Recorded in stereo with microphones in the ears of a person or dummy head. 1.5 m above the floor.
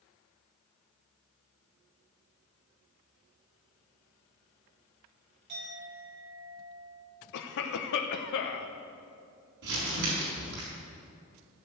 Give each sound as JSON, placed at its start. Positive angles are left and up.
{"t": 5.5, "sound": "a clink", "side_deg": -60, "distance_m": 4.5}
{"t": 7.3, "sound": "a cough", "side_deg": 70, "distance_m": 0.9}
{"t": 9.6, "sound": "crumpling", "side_deg": -70, "distance_m": 4.5}